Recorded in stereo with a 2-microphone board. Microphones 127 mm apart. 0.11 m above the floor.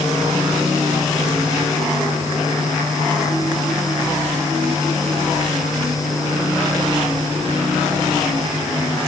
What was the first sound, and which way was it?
Only background noise.